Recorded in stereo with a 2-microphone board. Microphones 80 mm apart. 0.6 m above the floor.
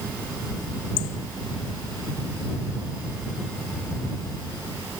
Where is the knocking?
No knocking in this recording.